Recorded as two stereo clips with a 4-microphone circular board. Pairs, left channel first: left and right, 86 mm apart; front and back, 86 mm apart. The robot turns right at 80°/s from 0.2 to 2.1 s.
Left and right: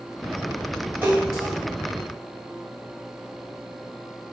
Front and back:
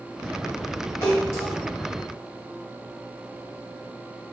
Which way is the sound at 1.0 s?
35° right.